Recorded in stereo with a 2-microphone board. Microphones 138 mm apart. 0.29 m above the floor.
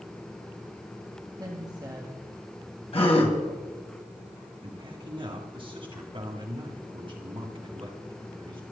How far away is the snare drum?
No snare drum in this recording.